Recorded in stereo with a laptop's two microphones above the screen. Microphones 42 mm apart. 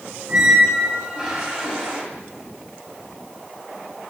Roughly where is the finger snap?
I don't hear a finger snap.